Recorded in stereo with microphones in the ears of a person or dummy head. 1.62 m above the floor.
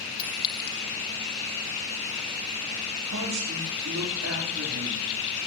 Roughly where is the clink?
Left.